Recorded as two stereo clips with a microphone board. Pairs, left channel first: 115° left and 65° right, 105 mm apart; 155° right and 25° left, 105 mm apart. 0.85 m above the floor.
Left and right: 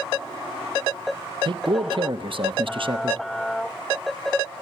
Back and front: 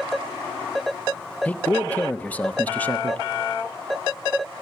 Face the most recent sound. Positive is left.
turn(degrees=-85)